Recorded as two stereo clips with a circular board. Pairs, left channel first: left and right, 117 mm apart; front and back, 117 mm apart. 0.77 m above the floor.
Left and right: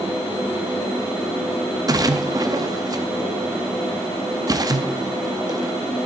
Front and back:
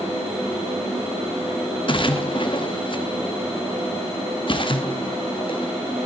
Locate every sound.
1.9 s a splash: 35° right, 0.8 m